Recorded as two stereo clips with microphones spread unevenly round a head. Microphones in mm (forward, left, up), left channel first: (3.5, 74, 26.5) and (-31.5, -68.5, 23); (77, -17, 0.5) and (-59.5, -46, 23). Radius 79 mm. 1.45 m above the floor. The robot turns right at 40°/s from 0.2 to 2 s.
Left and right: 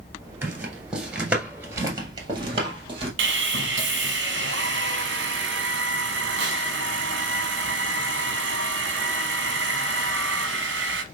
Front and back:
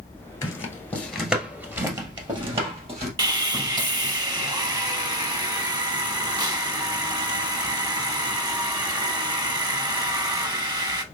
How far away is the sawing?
About 0.7 m.